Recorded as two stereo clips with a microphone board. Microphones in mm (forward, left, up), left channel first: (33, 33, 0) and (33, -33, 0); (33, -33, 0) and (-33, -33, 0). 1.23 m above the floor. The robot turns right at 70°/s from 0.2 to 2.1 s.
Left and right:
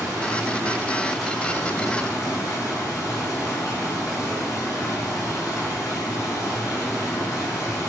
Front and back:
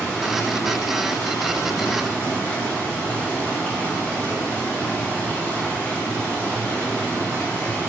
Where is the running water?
70° right, 0.9 m; by 7.9 s 60° left, 0.9 m.